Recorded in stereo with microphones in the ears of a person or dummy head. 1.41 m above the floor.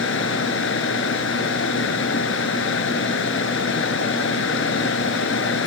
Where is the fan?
80° left.